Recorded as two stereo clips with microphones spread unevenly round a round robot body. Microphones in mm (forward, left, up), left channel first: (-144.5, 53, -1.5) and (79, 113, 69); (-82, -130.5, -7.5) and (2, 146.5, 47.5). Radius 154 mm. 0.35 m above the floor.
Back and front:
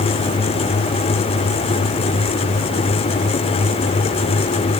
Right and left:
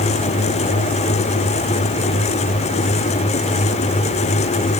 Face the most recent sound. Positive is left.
No sound to turn to.